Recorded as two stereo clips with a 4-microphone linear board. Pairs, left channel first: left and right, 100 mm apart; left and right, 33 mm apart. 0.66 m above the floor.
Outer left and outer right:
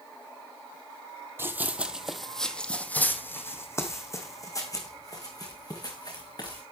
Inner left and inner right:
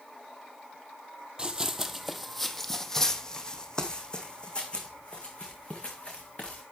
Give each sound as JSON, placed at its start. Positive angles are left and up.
{"t": 1.4, "sound": "running footsteps", "side_deg": -25, "distance_m": 1.3}